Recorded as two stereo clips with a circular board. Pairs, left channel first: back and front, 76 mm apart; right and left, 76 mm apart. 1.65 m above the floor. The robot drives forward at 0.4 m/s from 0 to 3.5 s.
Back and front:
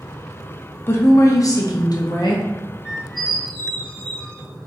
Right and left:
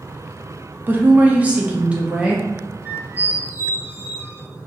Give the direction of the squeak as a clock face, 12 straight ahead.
10 o'clock.